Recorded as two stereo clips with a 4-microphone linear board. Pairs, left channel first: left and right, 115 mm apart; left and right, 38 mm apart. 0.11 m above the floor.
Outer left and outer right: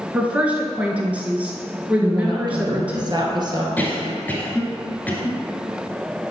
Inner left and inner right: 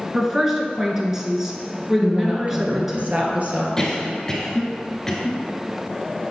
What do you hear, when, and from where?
0.1 s a woman speaking: 15° right (ahead or behind), 1.3 m
2.0 s a woman speaking: 40° right (ahead or behind), 1.6 m
3.8 s a cough: 15° left (ahead or behind), 1.6 m